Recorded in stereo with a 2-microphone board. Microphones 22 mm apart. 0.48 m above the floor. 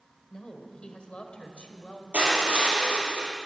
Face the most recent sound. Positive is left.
turn(degrees=-75)  # may be behind; listen again after turning